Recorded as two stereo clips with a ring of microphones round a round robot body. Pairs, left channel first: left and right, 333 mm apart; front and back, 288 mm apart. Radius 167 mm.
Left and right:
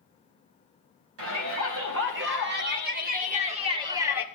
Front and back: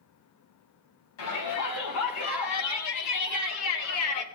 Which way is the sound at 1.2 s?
40° right.